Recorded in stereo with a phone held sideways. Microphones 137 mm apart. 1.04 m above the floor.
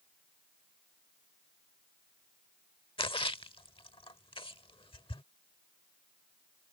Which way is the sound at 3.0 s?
40° left (ahead or behind).